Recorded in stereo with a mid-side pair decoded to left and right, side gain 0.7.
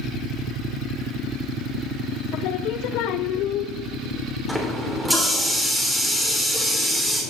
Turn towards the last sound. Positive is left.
turn(degrees=0)